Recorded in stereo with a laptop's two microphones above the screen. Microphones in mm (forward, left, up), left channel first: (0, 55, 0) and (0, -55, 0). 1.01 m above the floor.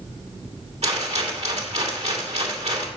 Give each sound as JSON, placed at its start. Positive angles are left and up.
{"t": 0.8, "sound": "a rattle", "side_deg": -75, "distance_m": 2.5}